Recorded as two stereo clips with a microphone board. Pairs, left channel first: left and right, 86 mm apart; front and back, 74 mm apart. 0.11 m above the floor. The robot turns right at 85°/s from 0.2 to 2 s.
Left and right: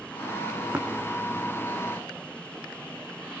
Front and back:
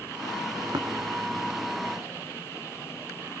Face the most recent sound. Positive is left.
turn(degrees=-50)